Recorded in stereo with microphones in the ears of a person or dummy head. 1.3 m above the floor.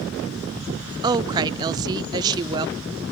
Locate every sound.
1.0 s a woman speaking: 25° right (ahead or behind), 0.5 m